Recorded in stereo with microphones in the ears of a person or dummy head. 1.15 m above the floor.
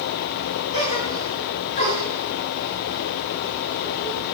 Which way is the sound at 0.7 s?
35° left (ahead or behind).